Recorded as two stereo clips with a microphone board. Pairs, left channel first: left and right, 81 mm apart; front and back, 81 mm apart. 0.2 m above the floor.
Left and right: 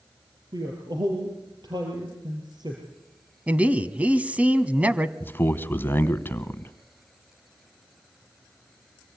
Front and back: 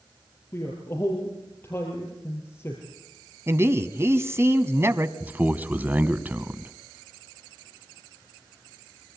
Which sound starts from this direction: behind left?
A man speaking, at 5.2 s.